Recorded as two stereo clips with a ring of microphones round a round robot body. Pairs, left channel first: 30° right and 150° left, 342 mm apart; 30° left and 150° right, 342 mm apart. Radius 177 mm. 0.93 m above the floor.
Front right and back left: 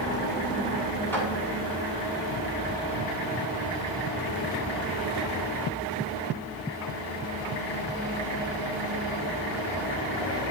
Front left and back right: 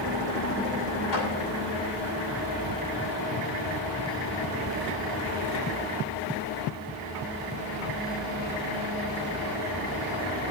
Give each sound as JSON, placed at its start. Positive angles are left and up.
{"t": 1.1, "sound": "a clap", "azimuth_deg": 55, "distance_m": 7.5}